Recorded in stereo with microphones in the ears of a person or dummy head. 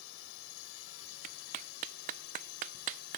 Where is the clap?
50° right (ahead or behind).